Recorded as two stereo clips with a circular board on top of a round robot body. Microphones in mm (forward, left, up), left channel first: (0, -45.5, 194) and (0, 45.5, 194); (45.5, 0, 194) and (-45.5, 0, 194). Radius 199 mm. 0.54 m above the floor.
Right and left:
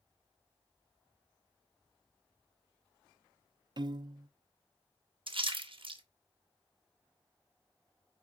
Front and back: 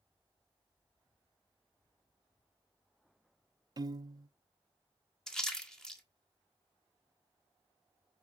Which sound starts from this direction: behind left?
A piano, at 3.8 s.